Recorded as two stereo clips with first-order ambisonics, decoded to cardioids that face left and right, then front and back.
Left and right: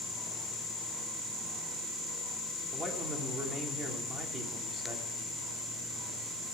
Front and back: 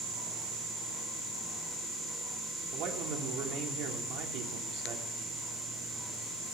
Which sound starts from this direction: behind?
A man speaking, at 2.7 s.